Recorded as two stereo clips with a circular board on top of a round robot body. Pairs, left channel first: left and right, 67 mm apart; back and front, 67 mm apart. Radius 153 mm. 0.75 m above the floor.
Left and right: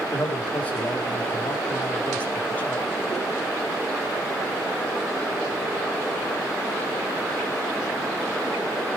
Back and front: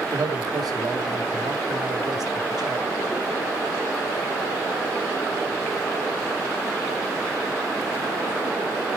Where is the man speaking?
25° left, 3.5 m.